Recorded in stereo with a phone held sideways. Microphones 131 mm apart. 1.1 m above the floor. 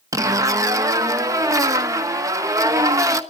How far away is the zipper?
About 1.1 m.